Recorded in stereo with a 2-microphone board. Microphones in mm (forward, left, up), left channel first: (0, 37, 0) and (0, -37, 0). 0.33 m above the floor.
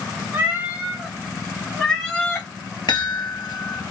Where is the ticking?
No ticking in this recording.